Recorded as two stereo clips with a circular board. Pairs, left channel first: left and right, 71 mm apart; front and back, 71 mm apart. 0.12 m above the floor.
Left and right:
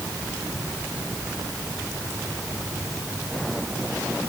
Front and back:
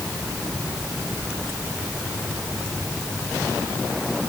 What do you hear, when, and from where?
Only background noise.